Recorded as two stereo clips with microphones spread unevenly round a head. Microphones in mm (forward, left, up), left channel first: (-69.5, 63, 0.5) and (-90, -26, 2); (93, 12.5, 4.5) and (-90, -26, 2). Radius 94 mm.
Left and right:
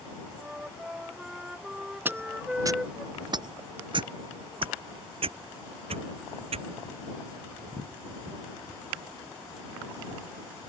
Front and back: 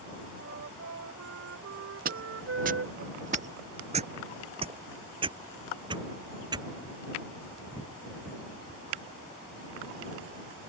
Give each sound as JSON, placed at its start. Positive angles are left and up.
{"t": 0.3, "sound": "a flute", "azimuth_deg": 175}
{"t": 2.0, "sound": "footsteps", "azimuth_deg": -160}